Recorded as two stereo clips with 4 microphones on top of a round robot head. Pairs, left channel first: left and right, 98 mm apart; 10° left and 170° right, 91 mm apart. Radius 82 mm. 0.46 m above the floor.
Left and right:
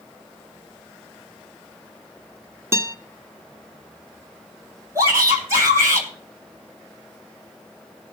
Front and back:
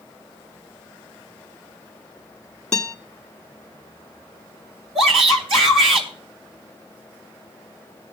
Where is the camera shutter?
No camera shutter in this recording.